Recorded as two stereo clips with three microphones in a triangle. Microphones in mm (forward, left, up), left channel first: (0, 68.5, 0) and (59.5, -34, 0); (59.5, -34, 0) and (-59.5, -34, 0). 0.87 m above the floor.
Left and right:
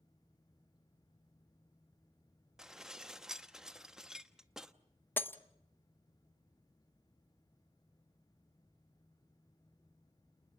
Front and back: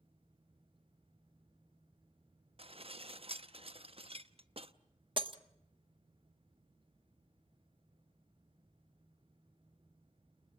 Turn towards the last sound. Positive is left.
turn(degrees=-175)